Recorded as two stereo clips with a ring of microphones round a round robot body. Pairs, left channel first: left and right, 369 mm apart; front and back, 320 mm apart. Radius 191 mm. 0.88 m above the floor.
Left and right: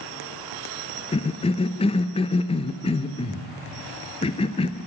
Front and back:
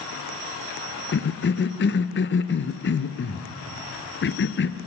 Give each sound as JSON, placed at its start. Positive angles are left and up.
{"t": 1.1, "sound": "a cough", "azimuth_deg": 25, "distance_m": 0.8}